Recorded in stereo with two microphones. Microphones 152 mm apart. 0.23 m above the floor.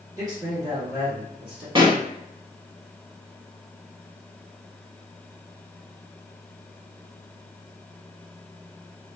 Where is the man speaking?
25° right (ahead or behind), 1.7 m; by 1.6 s 15° right (ahead or behind), 1.9 m.